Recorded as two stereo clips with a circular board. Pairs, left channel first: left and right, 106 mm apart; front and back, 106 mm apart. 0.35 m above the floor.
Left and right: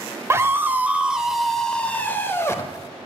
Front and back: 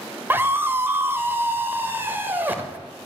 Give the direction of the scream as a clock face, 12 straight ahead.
4 o'clock.